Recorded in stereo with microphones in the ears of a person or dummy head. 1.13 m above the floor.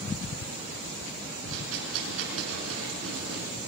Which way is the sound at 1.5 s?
75° right (ahead or behind).